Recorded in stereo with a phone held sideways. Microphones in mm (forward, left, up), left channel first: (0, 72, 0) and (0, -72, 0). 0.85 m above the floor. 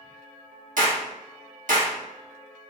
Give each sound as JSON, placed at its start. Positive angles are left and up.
{"t": 0.8, "sound": "a clap", "side_deg": -65, "distance_m": 1.4}